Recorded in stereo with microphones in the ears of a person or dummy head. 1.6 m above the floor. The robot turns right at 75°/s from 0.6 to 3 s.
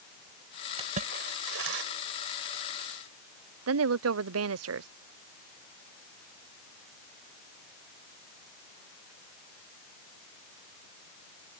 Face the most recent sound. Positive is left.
turn(degrees=-80)